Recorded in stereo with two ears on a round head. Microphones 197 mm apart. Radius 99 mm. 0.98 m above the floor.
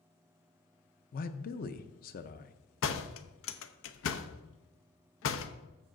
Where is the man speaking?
40° left (ahead or behind), 0.7 m.